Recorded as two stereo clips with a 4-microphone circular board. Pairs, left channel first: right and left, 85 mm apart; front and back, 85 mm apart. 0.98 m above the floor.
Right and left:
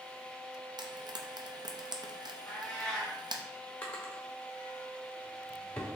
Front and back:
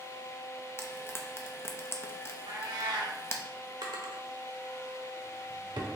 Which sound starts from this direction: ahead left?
Frying, at 0.8 s.